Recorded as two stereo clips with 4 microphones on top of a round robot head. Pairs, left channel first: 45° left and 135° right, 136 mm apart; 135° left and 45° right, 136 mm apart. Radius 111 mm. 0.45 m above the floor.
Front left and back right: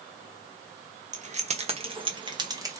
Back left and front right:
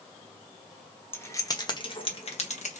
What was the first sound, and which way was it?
Keys jangling, 155° right.